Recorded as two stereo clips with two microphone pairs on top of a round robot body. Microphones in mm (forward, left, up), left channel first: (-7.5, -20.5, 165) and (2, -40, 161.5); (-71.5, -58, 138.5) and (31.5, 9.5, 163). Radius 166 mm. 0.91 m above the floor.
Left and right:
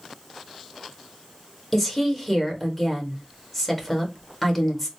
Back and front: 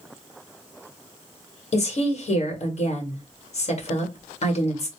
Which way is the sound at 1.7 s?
165° right.